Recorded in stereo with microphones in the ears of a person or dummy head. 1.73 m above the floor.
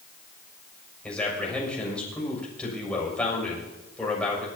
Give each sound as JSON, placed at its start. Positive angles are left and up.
{"t": 1.0, "sound": "a man speaking", "side_deg": 10, "distance_m": 6.5}